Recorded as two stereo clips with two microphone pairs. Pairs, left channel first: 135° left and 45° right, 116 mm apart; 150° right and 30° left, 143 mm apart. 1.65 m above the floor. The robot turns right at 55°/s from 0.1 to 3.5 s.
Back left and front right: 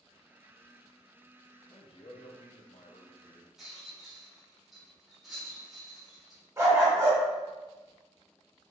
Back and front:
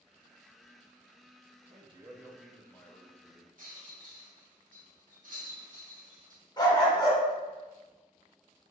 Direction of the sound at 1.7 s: 80° left.